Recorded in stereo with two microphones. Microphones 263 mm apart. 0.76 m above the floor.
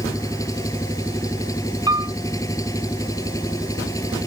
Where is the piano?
15° right (ahead or behind).